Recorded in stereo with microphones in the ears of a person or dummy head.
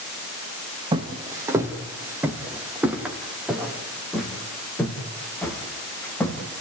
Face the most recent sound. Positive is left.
turn(degrees=10)  # may be behind; listen again after turning